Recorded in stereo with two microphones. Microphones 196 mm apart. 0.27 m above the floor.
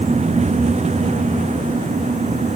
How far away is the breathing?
No breathing in this recording.